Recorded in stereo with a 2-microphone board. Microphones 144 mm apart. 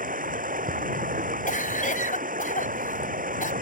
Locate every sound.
0.0 s running water: 70° right (ahead or behind)
1.5 s a cough: 70° left (ahead or behind)